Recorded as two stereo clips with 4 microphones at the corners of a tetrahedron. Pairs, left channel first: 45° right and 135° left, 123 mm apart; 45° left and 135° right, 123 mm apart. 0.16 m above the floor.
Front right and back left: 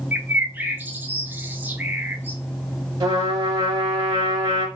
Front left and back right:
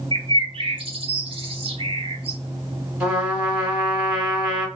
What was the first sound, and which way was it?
A bird, 155° right.